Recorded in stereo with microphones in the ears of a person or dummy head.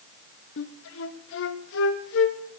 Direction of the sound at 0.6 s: 75° left (ahead or behind).